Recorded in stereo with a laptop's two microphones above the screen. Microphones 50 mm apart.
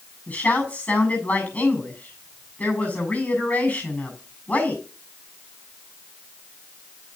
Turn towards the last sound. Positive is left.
turn(degrees=30)  # may be behind; listen again after turning